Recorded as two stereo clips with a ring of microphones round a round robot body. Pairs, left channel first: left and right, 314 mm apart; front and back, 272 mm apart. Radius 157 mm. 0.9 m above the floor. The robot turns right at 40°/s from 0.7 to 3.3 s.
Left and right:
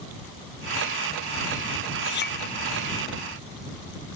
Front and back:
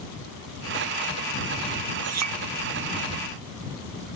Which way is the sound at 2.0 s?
145° left.